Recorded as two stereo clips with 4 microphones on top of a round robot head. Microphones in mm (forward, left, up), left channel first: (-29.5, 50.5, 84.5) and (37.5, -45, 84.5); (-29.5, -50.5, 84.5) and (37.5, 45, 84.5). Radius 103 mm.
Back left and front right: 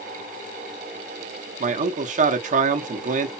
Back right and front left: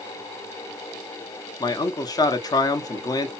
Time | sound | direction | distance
1.6 | a man speaking | 65° right | 0.9 m